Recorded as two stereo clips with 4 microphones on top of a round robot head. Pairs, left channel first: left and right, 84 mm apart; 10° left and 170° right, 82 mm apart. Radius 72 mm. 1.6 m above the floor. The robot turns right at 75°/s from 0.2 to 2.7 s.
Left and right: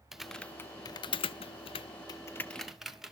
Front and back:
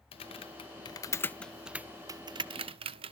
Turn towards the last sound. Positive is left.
turn(degrees=-175)